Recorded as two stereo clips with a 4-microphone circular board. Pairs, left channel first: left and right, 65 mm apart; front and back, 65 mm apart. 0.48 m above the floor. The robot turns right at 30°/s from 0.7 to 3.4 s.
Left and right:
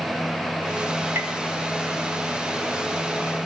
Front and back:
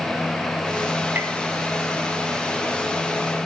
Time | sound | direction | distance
1.1 | tapping | 130° right | 1.0 m